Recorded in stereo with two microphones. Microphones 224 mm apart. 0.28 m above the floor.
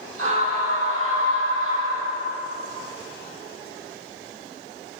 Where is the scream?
70° right (ahead or behind), 9.5 m; by 2.4 s 65° right (ahead or behind), 11 m.